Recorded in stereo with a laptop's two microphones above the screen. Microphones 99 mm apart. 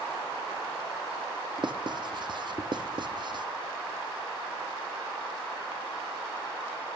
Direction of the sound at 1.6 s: 50° right (ahead or behind).